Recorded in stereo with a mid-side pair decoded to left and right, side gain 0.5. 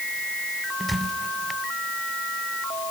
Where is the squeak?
5° right, 1.1 m.